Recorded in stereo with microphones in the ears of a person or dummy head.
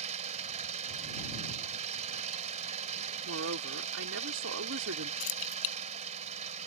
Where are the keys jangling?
75° left (ahead or behind).